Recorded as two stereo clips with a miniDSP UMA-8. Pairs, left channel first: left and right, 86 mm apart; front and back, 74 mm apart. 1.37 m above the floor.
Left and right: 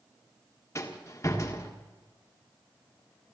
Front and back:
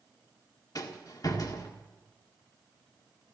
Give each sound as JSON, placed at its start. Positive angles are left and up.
{"t": 0.8, "sound": "a rattle", "azimuth_deg": 35, "distance_m": 1.7}